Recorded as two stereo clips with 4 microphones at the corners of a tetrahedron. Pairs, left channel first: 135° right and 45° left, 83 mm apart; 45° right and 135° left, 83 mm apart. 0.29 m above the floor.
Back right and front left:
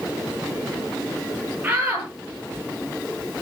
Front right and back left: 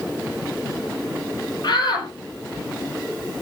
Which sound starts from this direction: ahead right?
A shout, at 1.6 s.